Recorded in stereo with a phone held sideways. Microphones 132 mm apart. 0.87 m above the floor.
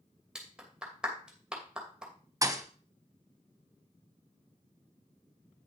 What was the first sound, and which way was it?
A clap, 5° right (ahead or behind).